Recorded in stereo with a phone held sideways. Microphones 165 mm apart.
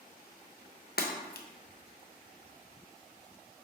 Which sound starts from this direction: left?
Breaking glass, at 1.0 s.